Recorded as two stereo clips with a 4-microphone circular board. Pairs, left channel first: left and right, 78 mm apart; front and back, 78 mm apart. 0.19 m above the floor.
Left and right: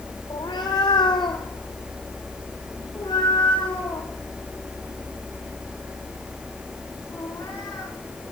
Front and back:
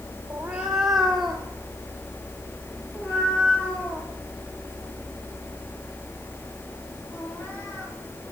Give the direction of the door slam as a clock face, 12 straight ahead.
No door slam in this recording.